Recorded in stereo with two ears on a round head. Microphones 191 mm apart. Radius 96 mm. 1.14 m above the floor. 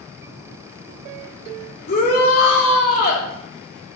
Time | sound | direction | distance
1.9 | a shout | 45° left (ahead or behind) | 3 m